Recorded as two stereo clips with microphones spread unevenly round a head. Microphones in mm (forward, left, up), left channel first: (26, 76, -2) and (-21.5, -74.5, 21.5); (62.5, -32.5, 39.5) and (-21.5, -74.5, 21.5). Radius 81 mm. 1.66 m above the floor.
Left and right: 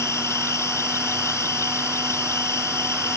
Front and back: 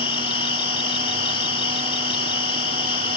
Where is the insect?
Straight ahead.